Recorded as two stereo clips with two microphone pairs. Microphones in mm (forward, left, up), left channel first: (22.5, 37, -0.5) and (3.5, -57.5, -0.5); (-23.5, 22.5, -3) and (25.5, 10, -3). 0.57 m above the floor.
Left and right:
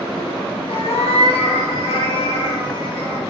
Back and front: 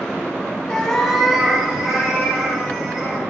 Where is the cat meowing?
90° left, 0.5 m; by 3.2 s 50° left, 1.6 m.